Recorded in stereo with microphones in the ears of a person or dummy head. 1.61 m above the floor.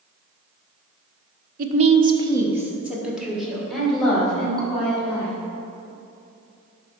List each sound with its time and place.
1.6 s a woman speaking: 50° right (ahead or behind), 0.9 m; by 5.3 s 5° left (ahead or behind), 4.5 m